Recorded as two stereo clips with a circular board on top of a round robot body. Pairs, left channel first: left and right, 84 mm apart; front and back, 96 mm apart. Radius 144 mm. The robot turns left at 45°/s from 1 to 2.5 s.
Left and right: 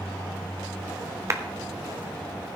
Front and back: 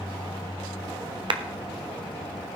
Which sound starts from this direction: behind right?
A clap, at 1.3 s.